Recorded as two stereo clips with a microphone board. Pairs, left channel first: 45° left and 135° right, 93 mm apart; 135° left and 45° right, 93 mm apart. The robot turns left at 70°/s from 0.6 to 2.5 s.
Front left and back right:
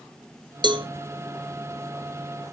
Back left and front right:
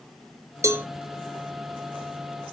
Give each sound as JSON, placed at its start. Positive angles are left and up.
{"t": 0.6, "sound": "a cowbell", "azimuth_deg": -100, "distance_m": 0.9}